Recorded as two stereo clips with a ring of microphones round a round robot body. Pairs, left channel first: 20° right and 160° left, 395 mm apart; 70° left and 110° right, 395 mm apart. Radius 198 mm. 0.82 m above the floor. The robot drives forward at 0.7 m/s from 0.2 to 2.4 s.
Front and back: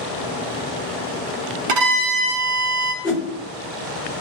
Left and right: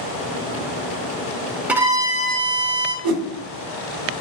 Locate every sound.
1.7 s a violin: 160° left, 0.6 m; by 2.9 s 170° left, 1.1 m
3.0 s a whoosh: 125° right, 1.0 m